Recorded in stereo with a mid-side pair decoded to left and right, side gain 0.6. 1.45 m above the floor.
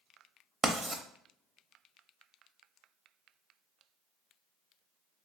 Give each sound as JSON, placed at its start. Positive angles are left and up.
{"t": 0.6, "sound": "writing", "azimuth_deg": -5, "distance_m": 0.5}